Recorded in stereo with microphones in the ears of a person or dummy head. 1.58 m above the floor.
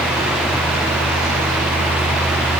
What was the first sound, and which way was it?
Only background noise.